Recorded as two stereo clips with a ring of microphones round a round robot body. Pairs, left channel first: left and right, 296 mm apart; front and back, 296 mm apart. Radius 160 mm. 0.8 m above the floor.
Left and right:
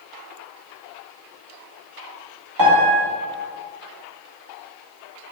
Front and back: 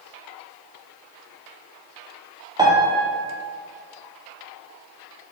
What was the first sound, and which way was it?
A piano, 105° right.